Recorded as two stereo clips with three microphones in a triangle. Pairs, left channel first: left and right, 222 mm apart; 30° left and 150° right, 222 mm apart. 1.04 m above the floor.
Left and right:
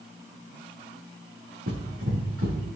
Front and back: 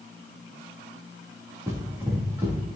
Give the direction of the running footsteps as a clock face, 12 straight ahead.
2 o'clock.